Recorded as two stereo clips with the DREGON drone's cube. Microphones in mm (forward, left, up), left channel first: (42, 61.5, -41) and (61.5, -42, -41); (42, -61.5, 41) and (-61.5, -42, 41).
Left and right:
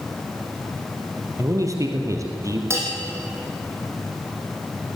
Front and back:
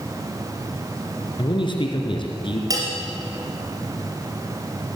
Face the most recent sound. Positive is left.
turn(degrees=-140)